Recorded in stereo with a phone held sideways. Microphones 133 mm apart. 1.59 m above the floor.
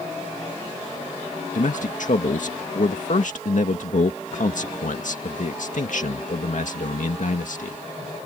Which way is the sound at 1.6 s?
70° left (ahead or behind).